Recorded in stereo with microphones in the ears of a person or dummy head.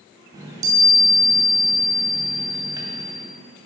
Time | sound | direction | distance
0.3 | a chime | 20° right (ahead or behind) | 2.5 m